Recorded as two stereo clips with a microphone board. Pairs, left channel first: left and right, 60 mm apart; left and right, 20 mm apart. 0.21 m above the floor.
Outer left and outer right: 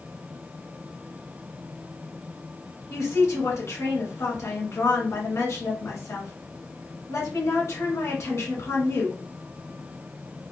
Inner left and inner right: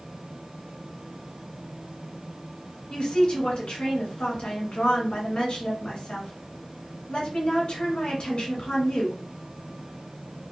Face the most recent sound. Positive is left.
turn(degrees=55)  # may be behind; listen again after turning